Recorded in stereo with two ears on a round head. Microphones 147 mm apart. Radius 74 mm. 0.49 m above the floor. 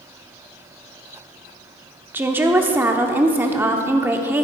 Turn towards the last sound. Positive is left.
turn(degrees=-10)  # may be behind; listen again after turning